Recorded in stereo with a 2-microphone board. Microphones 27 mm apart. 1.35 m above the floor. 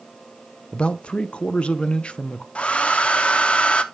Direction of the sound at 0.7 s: 45° left (ahead or behind).